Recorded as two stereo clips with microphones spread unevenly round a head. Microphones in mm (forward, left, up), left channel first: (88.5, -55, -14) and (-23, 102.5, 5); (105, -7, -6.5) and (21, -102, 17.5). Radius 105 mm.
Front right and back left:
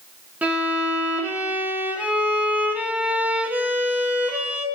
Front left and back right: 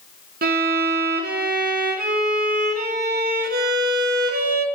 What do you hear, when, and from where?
0.4 s a violin: 150° right, 1.0 m